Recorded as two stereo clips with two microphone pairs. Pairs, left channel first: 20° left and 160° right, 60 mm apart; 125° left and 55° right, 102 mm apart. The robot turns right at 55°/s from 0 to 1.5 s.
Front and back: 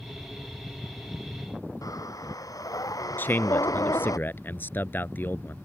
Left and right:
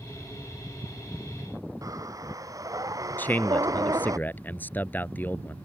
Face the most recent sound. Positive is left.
turn(degrees=60)